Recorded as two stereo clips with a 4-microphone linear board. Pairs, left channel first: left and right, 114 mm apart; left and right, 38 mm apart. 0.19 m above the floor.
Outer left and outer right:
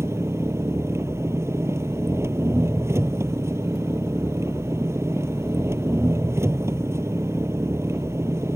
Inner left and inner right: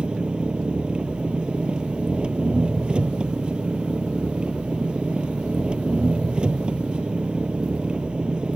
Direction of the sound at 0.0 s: 25° right (ahead or behind).